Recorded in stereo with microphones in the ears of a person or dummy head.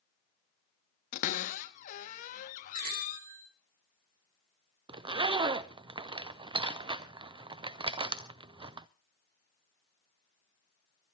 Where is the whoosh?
I don't hear a whoosh.